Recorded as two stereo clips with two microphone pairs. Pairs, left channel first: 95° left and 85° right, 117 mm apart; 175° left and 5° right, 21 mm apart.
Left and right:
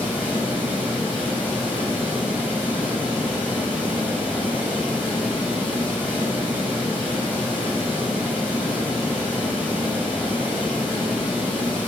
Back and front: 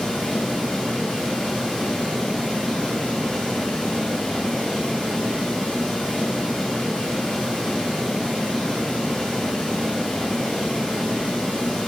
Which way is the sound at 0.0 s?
160° right.